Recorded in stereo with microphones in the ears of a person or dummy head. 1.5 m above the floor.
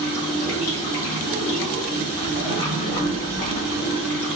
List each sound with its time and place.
0.0 s running water: 50° left (ahead or behind), 1.4 m